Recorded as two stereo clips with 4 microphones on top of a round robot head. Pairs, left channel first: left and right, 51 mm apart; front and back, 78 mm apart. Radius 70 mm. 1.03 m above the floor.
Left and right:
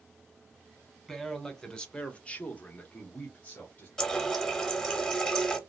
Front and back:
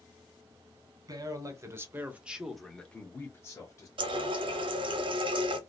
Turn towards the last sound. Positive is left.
turn(degrees=170)